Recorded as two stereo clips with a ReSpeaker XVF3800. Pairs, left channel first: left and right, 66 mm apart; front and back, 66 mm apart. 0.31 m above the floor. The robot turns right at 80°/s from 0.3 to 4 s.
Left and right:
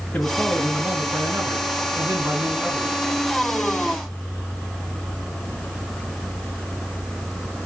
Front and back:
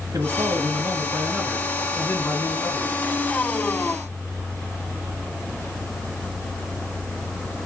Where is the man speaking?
155° left, 4 m; by 3.0 s 5° left, 4 m.